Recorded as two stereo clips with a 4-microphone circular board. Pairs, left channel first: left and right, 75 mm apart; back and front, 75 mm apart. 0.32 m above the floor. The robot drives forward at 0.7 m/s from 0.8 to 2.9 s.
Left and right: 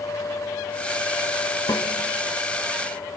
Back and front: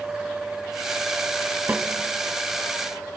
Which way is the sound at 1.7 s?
70° left.